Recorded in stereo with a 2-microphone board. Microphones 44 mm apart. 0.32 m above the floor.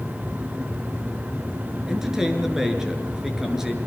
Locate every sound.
1.9 s a man speaking: 10° right (ahead or behind), 5.5 m